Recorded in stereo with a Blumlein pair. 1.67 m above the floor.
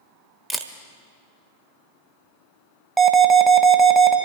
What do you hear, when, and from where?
0.5 s a camera shutter: 5° right, 1.2 m
3.0 s an alarm: 15° right, 1.5 m